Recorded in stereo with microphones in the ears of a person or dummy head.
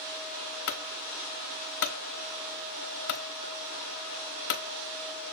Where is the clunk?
55° left (ahead or behind), 0.9 m.